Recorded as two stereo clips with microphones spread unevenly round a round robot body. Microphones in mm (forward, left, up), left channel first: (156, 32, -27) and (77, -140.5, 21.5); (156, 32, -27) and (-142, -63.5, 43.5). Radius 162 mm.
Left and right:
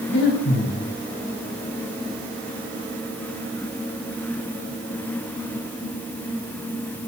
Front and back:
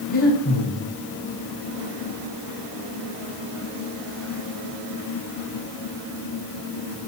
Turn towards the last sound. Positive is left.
turn(degrees=75)